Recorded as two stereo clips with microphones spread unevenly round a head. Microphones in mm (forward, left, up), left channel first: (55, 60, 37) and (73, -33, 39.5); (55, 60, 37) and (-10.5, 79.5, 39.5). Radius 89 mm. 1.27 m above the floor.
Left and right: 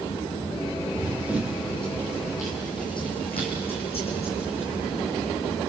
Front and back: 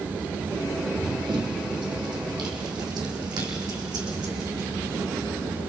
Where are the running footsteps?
150° right, 2.5 m; by 5.6 s 145° left, 6 m.